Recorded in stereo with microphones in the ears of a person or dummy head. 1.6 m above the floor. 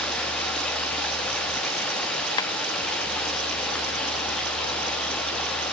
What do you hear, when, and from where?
0.0 s running water: 10° left (ahead or behind), 1.1 m
2.4 s tapping: 25° left (ahead or behind), 1.2 m